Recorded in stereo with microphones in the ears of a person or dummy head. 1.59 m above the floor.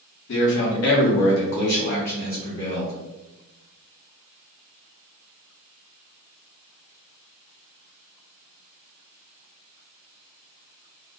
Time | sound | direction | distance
0.3 | a man speaking | 60° left (ahead or behind) | 0.8 m